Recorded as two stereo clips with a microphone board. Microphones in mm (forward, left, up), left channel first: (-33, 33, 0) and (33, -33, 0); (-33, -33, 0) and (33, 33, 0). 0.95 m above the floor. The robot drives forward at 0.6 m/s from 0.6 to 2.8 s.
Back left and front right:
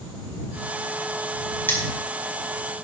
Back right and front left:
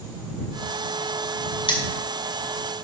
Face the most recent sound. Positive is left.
turn(degrees=-160)